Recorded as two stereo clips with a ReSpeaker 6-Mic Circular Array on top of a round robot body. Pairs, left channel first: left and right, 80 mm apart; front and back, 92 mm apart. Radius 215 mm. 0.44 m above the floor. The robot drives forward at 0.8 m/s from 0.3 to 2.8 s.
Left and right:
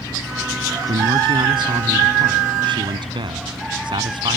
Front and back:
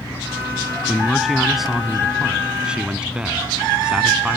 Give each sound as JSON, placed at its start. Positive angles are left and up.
{"t": 0.9, "sound": "a man speaking", "azimuth_deg": -90}